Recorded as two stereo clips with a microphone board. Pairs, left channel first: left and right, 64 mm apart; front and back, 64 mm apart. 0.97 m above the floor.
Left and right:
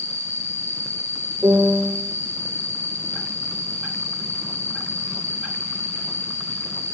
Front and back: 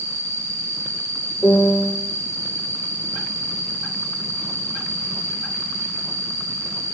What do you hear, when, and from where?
0.0 s an insect: 135° right, 3 m
1.4 s a piano: 65° right, 1.9 m